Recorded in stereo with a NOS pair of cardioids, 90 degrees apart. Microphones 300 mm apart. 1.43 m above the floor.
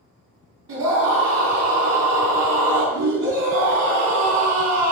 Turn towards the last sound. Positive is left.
turn(degrees=-60)